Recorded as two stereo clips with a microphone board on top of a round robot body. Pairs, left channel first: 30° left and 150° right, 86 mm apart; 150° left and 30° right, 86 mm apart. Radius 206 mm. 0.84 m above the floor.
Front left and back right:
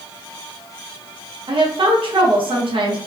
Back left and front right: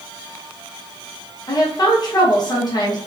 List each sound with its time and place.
1.5 s a woman speaking: 170° right, 1.0 m